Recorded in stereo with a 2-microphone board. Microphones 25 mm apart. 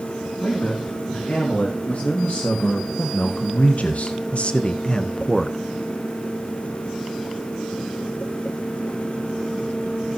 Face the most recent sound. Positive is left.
turn(degrees=10)  # may be behind; listen again after turning